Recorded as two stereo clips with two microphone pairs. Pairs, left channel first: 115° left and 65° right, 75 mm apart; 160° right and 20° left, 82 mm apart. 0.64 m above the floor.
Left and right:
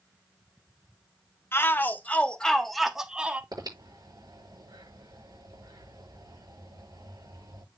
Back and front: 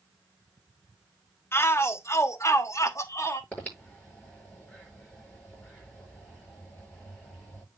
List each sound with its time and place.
1.5 s a shout: 155° left, 1.4 m; by 3.4 s 130° right, 1.3 m
3.5 s breathing: 85° right, 8.5 m